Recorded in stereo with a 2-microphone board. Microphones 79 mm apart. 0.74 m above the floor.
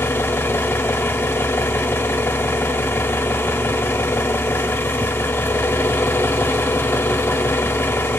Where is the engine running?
30° left (ahead or behind), 0.8 m.